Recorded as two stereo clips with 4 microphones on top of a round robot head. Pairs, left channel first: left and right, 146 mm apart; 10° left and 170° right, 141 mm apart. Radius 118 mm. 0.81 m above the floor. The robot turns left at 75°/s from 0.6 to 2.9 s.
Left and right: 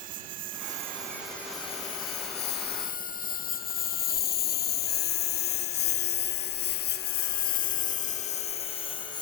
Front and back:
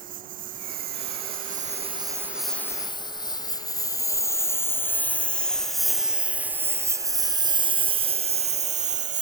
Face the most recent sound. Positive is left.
turn(degrees=160)